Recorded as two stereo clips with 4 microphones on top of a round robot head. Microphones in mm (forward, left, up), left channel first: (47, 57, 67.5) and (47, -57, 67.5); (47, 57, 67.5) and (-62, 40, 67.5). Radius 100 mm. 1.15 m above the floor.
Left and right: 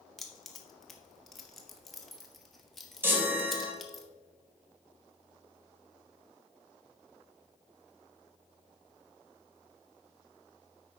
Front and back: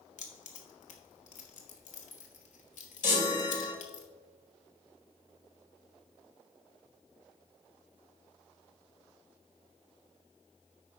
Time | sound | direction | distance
0.2 | keys jangling | straight ahead | 1.4 m
3.0 | a chime | 20° right | 1.8 m